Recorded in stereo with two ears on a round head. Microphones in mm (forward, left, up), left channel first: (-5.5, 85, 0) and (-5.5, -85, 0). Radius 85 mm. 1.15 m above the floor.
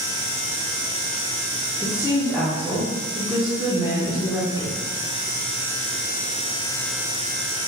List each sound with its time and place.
1.8 s a woman speaking: 10° left (ahead or behind), 0.7 m